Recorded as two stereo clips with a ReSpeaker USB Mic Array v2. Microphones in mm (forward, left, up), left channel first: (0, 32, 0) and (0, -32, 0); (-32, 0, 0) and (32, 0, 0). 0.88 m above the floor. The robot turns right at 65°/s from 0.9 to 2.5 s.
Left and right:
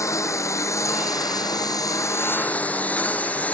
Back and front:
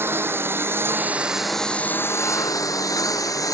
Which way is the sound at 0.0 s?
55° left.